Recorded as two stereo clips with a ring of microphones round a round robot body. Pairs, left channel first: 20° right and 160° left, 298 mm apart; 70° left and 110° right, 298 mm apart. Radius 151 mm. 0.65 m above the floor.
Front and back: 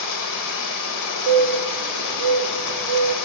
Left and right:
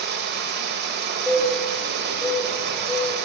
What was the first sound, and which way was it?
Running water, 55° right.